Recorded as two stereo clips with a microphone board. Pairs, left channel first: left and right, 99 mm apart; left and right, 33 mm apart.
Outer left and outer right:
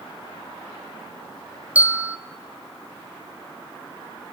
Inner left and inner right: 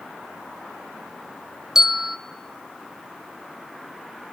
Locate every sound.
1.8 s a bell: 15° right (ahead or behind), 0.6 m